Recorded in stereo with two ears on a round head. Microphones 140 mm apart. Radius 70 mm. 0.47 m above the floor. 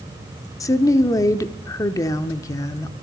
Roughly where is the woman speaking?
Left.